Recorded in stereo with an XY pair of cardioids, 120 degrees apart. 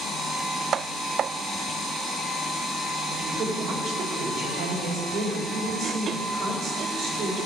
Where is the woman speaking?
65° right, 3 m.